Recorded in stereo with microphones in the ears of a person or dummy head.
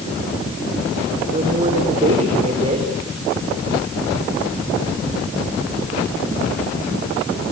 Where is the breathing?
No breathing in this recording.